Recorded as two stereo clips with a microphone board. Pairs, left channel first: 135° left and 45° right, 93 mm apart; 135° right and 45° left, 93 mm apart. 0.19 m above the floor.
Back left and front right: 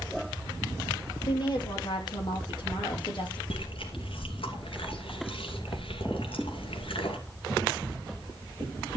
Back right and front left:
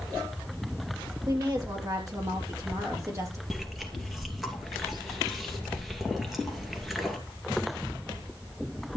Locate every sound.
1.3 s a woman speaking: 95° left, 5 m; by 3.4 s 100° left, 4 m
3.5 s chewing: 135° left, 2.5 m